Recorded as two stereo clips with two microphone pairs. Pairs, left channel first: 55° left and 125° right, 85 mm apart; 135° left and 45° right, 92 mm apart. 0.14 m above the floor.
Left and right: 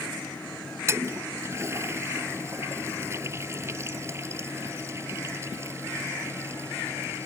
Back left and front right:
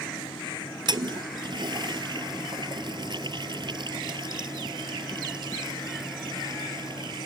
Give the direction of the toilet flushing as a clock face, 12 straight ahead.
2 o'clock.